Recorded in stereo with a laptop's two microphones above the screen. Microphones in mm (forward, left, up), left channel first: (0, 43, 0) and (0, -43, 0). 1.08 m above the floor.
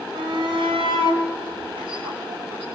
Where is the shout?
70° right (ahead or behind), 4.5 m; by 2.6 s 85° right, 7.5 m.